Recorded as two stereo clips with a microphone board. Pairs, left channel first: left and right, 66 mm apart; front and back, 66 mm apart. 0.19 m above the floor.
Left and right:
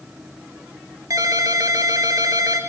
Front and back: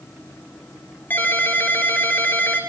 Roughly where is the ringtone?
Ahead right.